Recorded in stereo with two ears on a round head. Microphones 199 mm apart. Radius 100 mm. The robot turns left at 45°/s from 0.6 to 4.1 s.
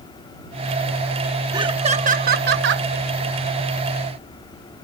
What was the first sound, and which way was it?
Laughter, 20° right.